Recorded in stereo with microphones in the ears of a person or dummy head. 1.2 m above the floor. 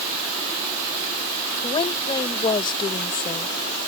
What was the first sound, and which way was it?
A woman speaking, 25° left (ahead or behind).